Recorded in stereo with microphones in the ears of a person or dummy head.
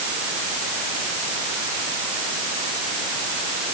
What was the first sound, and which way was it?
Only background noise.